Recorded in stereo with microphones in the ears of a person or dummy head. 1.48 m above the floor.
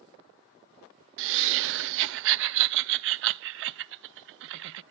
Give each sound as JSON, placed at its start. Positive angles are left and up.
{"t": 1.2, "sound": "laughter", "side_deg": -75, "distance_m": 0.7}